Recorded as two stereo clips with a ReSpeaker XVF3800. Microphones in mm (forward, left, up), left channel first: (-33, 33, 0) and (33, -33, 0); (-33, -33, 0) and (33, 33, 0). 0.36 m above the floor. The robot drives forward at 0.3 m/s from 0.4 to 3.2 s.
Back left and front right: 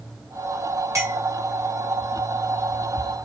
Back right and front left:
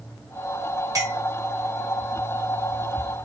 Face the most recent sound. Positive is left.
turn(degrees=10)